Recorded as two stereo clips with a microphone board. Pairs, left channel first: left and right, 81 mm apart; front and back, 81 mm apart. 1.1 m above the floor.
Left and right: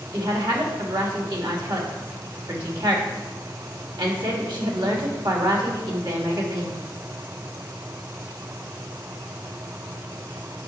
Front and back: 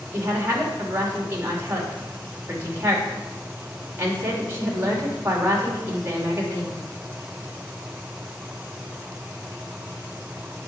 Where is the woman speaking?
120° right, 2.5 m.